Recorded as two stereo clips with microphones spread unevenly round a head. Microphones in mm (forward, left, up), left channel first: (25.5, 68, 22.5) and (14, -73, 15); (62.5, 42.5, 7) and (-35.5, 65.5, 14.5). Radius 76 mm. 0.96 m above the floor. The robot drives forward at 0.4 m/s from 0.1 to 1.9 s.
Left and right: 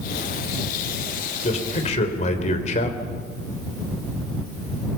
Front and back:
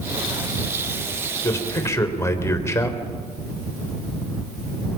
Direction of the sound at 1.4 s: 45° left.